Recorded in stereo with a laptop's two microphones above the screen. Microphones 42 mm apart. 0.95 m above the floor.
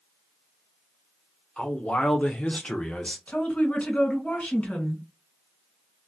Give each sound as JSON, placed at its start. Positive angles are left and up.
{"t": 1.6, "sound": "a man speaking", "side_deg": 30, "distance_m": 0.8}
{"t": 3.3, "sound": "a woman speaking", "side_deg": 30, "distance_m": 1.5}